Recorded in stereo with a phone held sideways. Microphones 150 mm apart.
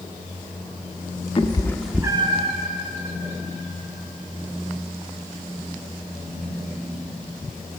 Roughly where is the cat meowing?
Left.